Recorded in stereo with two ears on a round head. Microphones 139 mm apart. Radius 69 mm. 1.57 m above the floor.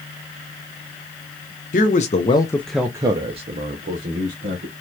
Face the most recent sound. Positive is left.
turn(degrees=-65)  # may be behind; listen again after turning